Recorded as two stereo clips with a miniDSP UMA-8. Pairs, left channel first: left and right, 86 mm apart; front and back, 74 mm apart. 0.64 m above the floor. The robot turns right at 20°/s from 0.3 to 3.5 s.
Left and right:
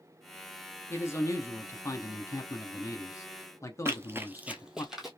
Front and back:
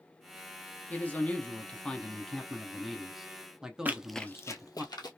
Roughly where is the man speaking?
Ahead left.